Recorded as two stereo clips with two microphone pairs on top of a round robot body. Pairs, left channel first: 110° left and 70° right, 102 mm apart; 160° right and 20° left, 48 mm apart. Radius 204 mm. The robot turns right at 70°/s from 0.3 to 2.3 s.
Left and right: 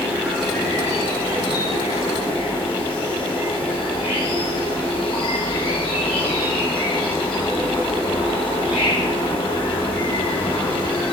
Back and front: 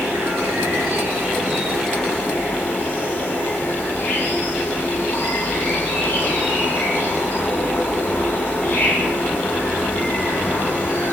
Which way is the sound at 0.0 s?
5° left.